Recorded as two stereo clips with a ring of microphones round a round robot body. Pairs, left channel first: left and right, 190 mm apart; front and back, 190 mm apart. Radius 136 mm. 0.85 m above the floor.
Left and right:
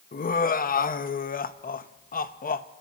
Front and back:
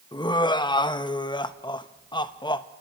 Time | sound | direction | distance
0.1 | laughter | 60° left | 0.8 m